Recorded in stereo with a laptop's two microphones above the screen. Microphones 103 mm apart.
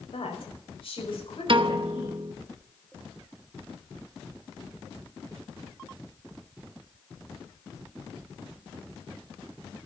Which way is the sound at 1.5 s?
55° right (ahead or behind).